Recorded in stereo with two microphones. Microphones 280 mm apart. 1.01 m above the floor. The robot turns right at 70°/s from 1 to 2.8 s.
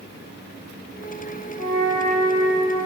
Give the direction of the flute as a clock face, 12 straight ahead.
9 o'clock.